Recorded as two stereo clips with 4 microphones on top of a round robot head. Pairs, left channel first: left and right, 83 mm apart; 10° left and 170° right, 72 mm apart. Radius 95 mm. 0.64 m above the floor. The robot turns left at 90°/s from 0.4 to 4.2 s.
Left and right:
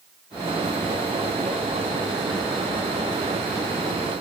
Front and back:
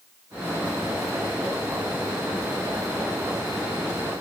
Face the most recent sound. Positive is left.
No sound to turn to.